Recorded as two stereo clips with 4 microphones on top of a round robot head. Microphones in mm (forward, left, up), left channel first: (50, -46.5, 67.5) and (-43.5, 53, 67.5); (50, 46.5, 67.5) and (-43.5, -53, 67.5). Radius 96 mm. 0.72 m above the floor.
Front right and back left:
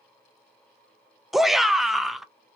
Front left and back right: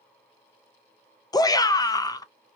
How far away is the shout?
About 0.5 m.